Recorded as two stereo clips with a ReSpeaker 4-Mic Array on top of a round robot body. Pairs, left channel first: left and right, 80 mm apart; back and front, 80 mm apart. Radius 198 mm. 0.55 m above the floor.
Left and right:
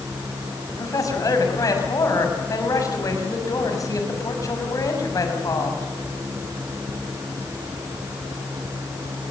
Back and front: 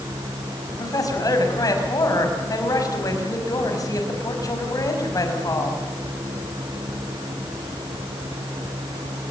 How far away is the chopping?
I don't hear chopping.